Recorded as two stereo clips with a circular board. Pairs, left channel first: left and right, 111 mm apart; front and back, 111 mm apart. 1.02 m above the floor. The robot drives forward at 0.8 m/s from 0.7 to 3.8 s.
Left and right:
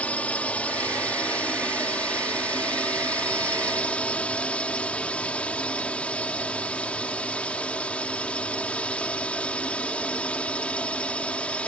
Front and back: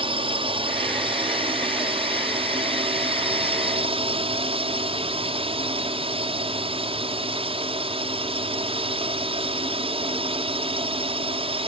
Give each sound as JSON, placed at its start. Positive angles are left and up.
{"t": 0.0, "sound": "a drone", "azimuth_deg": 165}